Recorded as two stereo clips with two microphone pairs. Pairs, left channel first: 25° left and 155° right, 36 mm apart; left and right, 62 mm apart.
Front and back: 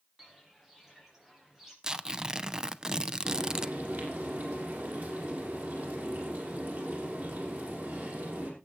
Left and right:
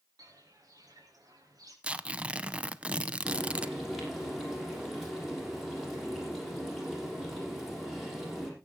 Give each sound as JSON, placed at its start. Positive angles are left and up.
{"t": 0.2, "sound": "footsteps", "azimuth_deg": -75, "distance_m": 5.5}
{"t": 1.8, "sound": "tearing paper", "azimuth_deg": -120, "distance_m": 0.6}
{"t": 3.2, "sound": "frying", "azimuth_deg": -175, "distance_m": 6.5}